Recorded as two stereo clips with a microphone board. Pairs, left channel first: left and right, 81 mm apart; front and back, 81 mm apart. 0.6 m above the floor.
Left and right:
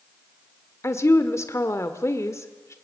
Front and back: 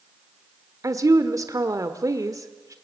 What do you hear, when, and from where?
0.8 s a woman speaking: 140° left, 1.3 m